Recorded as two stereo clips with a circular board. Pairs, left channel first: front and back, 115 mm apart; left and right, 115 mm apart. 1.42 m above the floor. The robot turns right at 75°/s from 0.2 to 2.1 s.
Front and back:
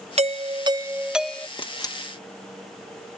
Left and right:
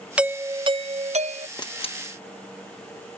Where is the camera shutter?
35° left; by 2.0 s 65° left.